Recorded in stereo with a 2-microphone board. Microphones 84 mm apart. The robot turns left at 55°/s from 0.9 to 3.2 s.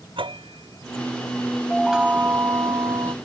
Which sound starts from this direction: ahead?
A chime, at 1.7 s.